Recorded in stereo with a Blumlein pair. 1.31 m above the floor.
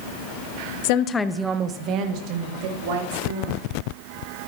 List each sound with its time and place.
0.8 s a woman speaking: 55° left, 0.6 m; by 3.6 s 55° right, 3 m